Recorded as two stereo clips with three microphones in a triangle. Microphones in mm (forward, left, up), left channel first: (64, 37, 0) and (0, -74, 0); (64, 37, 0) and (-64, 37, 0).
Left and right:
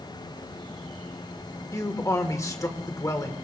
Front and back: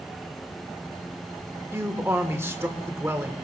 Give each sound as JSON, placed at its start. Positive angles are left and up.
{"t": 1.7, "sound": "a man speaking", "azimuth_deg": 115, "distance_m": 1.5}